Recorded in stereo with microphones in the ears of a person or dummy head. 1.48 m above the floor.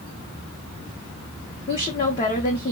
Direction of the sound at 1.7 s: 35° left (ahead or behind).